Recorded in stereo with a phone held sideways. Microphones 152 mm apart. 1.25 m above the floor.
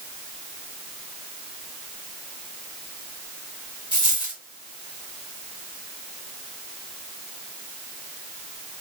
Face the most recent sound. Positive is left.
turn(degrees=35)  # may be behind; listen again after turning